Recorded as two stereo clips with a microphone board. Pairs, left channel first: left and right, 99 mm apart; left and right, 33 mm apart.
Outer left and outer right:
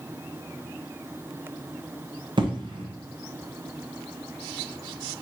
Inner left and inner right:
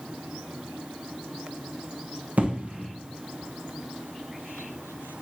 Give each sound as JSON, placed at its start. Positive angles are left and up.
{"t": 2.4, "sound": "an explosion", "side_deg": -55, "distance_m": 0.7}